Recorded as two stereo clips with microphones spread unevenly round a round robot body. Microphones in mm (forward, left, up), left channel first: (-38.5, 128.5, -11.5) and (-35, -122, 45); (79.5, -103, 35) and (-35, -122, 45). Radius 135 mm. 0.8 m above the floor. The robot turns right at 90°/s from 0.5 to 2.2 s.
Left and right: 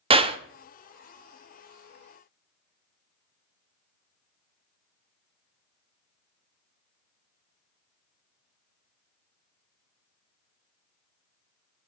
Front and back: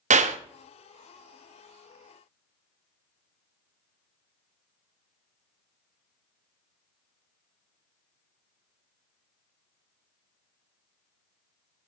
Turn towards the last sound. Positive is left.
turn(degrees=-10)